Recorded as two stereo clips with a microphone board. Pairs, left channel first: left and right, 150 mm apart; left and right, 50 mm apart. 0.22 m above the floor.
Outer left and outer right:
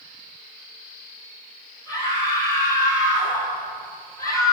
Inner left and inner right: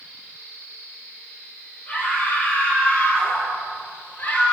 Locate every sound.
1.9 s a scream: 25° left (ahead or behind), 6.5 m